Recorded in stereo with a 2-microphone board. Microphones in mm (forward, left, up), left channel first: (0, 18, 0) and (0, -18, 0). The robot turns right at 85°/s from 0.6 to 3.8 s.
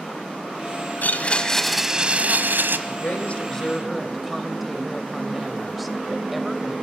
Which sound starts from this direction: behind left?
A blender, at 1.0 s.